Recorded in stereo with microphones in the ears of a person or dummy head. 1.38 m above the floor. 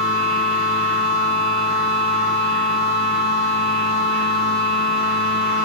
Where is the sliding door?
No sliding door in this recording.